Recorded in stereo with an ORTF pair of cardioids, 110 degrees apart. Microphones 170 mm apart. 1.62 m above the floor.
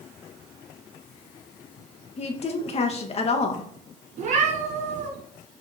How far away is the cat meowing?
About 4.5 m.